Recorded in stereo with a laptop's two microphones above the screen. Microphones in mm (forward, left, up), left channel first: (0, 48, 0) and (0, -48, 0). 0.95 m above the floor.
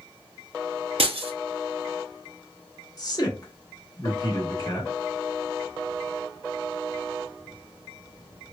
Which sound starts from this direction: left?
A man speaking, at 3.0 s.